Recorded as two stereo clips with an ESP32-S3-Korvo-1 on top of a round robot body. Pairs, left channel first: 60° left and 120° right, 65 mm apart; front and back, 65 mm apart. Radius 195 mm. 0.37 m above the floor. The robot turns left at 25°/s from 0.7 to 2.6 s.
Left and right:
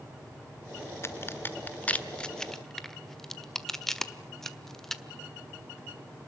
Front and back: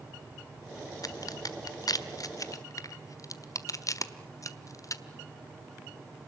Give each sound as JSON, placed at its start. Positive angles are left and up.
{"t": 1.0, "sound": "a crack", "azimuth_deg": 15, "distance_m": 1.6}